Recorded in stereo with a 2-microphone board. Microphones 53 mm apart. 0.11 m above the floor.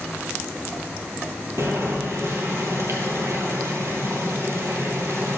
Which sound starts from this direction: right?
Boiling, at 1.6 s.